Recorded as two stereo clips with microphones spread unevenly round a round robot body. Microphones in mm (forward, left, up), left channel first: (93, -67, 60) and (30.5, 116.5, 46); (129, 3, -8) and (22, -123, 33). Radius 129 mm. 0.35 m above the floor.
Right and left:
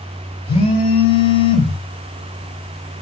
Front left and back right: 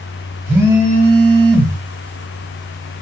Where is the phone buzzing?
40° right, 1.4 m.